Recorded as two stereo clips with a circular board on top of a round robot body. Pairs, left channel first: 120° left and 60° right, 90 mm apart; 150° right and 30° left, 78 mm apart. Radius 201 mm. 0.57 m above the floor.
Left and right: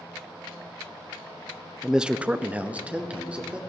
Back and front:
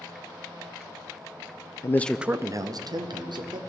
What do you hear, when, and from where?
1.8 s a man speaking: 145° right, 0.7 m; by 3.6 s 20° left, 1.7 m